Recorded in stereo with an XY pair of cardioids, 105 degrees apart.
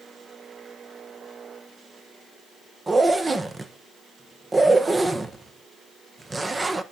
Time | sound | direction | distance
2.9 | a zipper | 25° right | 1.1 m